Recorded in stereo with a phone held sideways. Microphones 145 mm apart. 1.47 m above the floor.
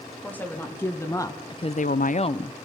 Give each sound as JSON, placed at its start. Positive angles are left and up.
{"t": 0.2, "sound": "a woman speaking", "side_deg": 10, "distance_m": 3.0}